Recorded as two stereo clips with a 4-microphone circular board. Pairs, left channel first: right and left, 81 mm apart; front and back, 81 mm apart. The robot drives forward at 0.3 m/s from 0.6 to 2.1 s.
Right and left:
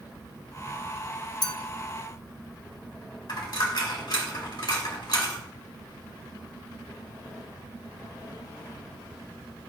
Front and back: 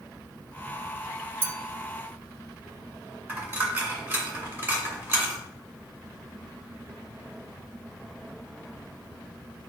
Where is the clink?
120° right, 0.7 m; by 1.6 s 125° right, 0.8 m.